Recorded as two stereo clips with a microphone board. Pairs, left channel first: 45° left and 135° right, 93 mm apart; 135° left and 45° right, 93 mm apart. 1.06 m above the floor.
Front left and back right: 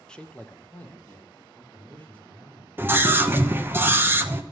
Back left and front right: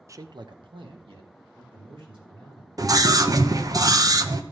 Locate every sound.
0.1 s a man speaking: 30° right, 0.5 m; by 2.7 s 25° right, 4 m
2.8 s a scream: 75° right, 0.8 m